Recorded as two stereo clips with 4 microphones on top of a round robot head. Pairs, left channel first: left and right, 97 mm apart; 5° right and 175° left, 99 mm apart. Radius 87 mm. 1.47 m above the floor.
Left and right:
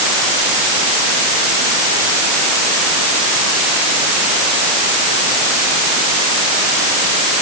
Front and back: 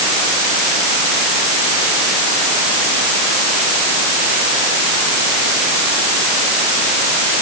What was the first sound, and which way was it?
Only background noise.